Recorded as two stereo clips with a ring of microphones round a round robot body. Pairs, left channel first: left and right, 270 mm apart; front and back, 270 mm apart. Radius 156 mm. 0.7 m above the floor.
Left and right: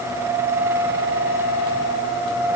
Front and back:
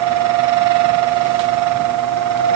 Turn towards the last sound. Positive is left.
No sound to turn to.